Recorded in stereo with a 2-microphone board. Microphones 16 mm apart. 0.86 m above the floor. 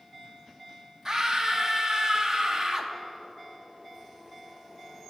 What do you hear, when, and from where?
1.1 s a scream: 35° right (ahead or behind), 0.8 m